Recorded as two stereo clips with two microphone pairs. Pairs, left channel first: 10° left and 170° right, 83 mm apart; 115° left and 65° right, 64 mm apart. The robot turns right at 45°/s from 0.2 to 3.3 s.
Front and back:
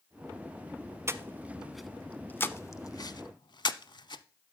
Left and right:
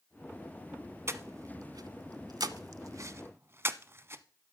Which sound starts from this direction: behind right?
Breathing, at 1.1 s.